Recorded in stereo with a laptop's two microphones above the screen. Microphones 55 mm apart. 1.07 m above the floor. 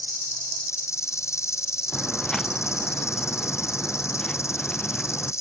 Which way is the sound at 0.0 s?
70° left (ahead or behind).